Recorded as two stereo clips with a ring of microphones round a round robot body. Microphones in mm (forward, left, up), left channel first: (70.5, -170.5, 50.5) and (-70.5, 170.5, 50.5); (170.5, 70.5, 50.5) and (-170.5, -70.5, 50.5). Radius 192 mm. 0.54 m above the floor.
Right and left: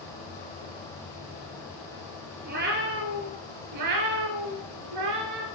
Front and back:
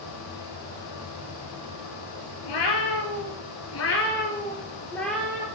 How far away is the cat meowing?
About 1.4 m.